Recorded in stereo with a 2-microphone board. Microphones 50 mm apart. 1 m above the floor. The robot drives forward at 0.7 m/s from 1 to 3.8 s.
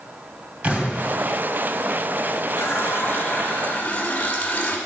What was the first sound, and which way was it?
An explosion, 30° right (ahead or behind).